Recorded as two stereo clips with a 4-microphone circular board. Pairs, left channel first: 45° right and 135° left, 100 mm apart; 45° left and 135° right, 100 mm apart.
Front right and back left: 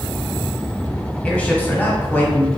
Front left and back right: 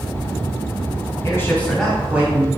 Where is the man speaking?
20° left, 1.1 m; by 2.5 s 95° right, 1.1 m.